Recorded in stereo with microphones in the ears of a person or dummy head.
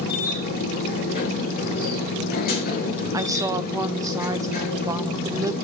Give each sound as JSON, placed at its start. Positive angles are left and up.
{"t": 0.0, "sound": "a machine running", "side_deg": 45, "distance_m": 2.5}
{"t": 3.1, "sound": "a woman speaking", "side_deg": -10, "distance_m": 0.6}